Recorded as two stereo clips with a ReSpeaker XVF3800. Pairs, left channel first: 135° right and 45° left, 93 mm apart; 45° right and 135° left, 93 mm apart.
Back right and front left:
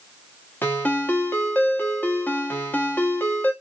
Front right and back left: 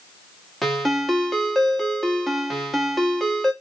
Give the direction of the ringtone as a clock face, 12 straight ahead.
4 o'clock.